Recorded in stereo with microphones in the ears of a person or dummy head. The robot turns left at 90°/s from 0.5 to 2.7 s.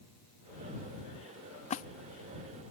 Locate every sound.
1.7 s a splash: 35° left (ahead or behind); by 1.9 s 45° left (ahead or behind)